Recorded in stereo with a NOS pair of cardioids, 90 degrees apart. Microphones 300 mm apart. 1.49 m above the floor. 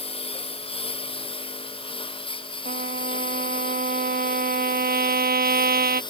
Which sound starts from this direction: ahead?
A lawn mower, at 0.0 s.